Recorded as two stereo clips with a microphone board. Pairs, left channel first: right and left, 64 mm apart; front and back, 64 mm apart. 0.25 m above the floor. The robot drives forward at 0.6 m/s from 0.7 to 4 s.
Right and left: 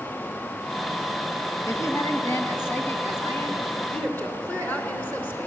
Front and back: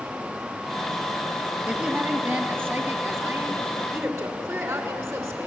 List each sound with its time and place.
1.7 s a woman speaking: 115° right, 1.8 m; by 5.5 s 150° right, 2.5 m